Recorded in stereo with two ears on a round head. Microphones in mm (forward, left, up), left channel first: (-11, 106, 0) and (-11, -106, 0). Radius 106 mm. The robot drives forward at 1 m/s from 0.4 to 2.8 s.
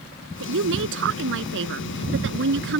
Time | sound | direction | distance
0.4 | a woman speaking | 65° right (ahead or behind) | ?